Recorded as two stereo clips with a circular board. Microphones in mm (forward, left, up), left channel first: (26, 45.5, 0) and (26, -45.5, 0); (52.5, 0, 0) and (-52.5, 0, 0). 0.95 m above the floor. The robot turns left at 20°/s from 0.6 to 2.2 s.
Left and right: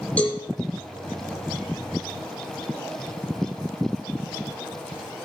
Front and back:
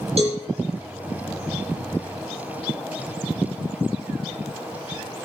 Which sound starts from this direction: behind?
A cowbell, at 0.2 s.